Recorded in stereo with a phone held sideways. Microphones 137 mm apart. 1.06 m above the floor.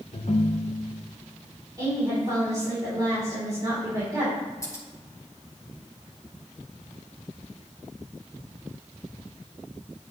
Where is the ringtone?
60° left (ahead or behind), 0.6 m.